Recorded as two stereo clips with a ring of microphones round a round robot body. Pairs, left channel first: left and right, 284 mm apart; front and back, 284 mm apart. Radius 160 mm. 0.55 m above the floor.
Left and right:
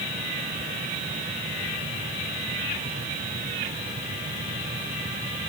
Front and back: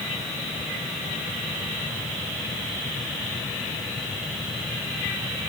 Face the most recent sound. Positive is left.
No sound to turn to.